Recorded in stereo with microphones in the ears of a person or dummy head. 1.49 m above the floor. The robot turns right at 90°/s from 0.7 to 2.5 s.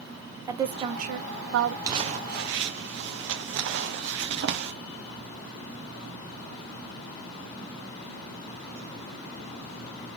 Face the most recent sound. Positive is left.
turn(degrees=-55)  # may be behind; listen again after turning